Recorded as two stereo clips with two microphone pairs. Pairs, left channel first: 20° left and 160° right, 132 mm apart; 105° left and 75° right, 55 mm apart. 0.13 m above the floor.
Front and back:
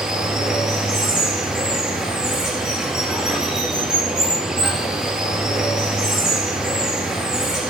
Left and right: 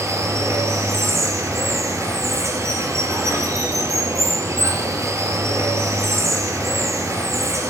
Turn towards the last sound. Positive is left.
turn(degrees=-75)